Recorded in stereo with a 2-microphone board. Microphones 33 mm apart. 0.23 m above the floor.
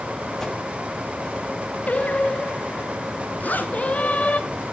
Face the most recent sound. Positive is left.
turn(degrees=55)  # may be behind; listen again after turning